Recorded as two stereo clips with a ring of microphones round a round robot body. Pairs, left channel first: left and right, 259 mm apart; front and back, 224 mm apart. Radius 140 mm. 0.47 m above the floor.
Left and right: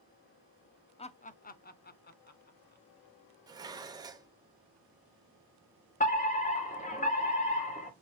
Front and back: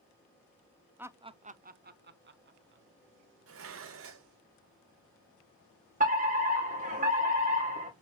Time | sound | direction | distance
1.0 | laughter | 110° left | 0.7 m
3.5 | dishes clattering | 165° right | 1.1 m
6.0 | a fire alarm | 140° left | 3 m